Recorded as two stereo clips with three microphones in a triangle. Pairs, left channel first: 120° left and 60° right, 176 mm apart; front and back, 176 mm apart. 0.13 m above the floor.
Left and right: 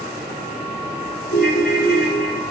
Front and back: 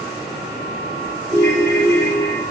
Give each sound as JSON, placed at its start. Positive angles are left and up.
{"t": 1.3, "sound": "a ringtone", "azimuth_deg": 115, "distance_m": 2.5}